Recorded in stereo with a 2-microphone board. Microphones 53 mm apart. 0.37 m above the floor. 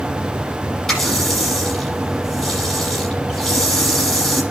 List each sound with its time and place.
0.9 s a running tap: 5° left (ahead or behind), 7.5 m